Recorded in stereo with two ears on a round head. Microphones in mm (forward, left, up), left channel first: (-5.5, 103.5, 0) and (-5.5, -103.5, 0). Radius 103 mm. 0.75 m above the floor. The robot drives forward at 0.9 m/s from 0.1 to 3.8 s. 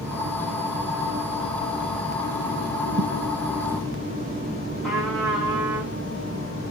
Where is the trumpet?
Centre (ahead or behind), 6 m.